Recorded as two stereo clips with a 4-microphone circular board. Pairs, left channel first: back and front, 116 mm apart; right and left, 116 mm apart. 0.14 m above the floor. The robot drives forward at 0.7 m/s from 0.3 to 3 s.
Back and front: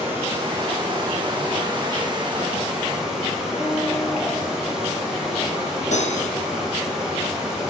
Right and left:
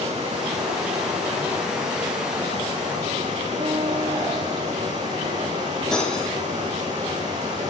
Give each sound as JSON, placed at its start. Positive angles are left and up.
{"t": 0.0, "sound": "running water", "azimuth_deg": 70, "distance_m": 7.0}
{"t": 3.6, "sound": "a guitar", "azimuth_deg": 120, "distance_m": 8.5}
{"t": 5.9, "sound": "cutlery clinking", "azimuth_deg": -175, "distance_m": 3.5}